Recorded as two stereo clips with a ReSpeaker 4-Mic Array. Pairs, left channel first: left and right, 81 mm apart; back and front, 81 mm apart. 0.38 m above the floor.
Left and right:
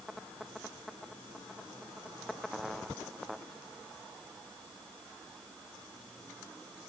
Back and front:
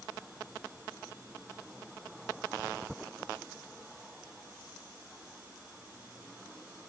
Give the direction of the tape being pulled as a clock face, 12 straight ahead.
I don't hear tape being pulled.